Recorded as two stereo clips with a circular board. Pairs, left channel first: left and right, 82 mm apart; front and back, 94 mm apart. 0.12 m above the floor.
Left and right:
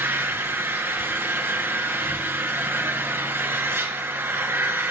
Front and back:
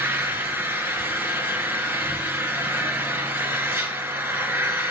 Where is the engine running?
130° right, 1.5 m.